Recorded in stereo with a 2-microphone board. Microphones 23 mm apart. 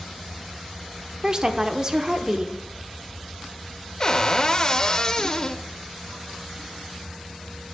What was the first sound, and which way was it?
A woman speaking, 25° right (ahead or behind).